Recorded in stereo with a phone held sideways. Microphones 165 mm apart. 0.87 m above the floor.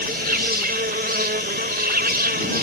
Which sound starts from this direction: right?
An insect, at 0.0 s.